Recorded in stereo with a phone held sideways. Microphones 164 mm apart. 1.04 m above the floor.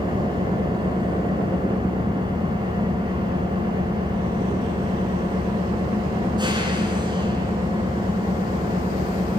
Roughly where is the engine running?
Right.